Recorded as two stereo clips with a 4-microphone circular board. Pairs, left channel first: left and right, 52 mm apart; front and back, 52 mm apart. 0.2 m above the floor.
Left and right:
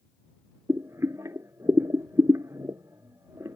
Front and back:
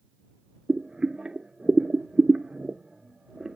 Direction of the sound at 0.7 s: 105° right.